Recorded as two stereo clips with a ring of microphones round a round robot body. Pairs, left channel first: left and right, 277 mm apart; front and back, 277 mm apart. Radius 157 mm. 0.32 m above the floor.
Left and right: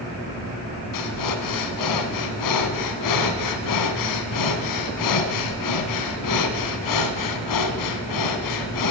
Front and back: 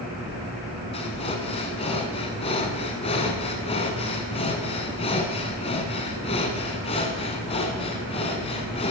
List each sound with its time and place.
0.9 s breathing: 70° left, 1.0 m